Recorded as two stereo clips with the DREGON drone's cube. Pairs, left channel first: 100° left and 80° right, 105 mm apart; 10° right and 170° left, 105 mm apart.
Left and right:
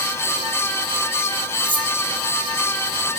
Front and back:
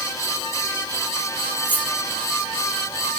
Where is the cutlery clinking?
80° right, 1.3 m.